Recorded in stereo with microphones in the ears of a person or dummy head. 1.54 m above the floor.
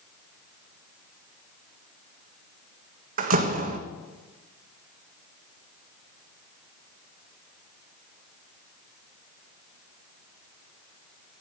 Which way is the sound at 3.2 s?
50° right (ahead or behind).